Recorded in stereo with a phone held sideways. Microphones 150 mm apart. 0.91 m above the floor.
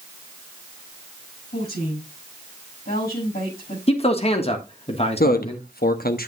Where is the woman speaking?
75° left (ahead or behind), 7.5 m.